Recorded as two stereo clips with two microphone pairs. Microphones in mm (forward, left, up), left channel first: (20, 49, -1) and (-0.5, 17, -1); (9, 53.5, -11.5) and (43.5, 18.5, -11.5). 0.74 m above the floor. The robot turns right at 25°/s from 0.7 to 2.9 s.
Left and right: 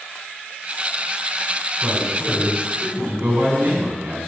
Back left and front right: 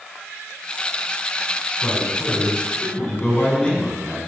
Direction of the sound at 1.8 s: 170° left.